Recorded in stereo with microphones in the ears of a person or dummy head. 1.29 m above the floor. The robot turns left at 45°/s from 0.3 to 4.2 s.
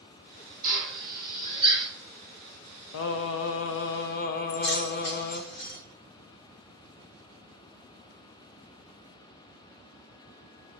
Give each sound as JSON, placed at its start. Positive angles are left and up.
{"t": 0.6, "sound": "a drill", "side_deg": -75, "distance_m": 1.1}
{"t": 2.9, "sound": "singing", "azimuth_deg": 110, "distance_m": 0.5}
{"t": 4.5, "sound": "keys jangling", "side_deg": 55, "distance_m": 1.0}